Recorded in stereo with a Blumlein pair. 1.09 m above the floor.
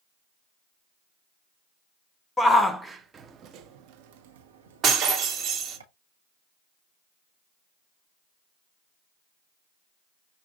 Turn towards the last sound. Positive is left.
turn(degrees=-25)